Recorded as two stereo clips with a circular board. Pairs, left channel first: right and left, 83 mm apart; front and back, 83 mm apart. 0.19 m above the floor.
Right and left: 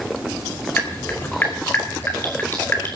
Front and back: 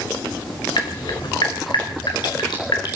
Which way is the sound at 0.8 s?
25° right.